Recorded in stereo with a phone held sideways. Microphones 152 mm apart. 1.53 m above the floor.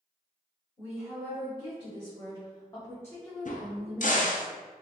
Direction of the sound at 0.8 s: 35° left (ahead or behind).